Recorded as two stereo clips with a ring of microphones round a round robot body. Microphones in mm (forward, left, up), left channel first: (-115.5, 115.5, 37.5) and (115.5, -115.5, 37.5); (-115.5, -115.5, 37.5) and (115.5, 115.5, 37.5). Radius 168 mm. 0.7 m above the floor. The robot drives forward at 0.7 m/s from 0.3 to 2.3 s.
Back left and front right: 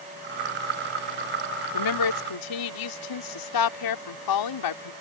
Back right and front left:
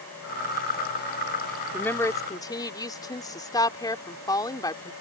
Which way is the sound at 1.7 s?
140° left.